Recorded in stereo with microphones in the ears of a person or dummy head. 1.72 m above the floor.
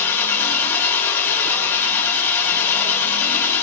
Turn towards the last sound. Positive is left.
turn(degrees=10)  # may be behind; listen again after turning